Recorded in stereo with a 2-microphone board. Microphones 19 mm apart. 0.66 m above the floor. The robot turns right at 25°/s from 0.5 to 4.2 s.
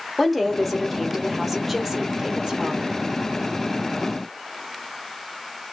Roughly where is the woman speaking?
Behind.